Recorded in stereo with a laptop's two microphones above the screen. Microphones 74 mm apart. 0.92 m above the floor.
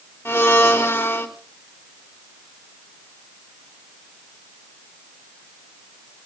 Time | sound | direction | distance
0.2 | a blender | 30° left (ahead or behind) | 3 m